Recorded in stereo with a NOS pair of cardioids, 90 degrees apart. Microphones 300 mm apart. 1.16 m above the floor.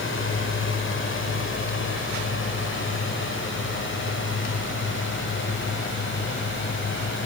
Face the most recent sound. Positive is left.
turn(degrees=40)